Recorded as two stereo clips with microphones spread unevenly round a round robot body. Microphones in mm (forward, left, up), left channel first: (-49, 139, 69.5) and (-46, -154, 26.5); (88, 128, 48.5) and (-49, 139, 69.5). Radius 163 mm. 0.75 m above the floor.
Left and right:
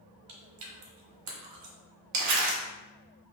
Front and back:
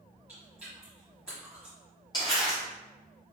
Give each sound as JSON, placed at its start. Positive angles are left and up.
{"t": 0.3, "sound": "chewing", "azimuth_deg": -105, "distance_m": 1.2}
{"t": 2.1, "sound": "crumpling", "azimuth_deg": -65, "distance_m": 1.0}